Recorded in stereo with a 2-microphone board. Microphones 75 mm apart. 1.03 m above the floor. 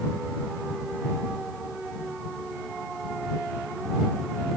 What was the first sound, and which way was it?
Only background noise.